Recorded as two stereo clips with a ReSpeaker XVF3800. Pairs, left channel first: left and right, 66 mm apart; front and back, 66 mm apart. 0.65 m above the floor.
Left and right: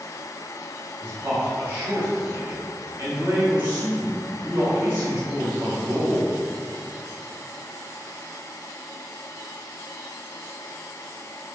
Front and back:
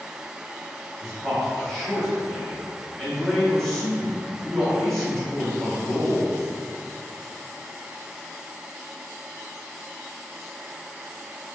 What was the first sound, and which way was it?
A man speaking, 80° right.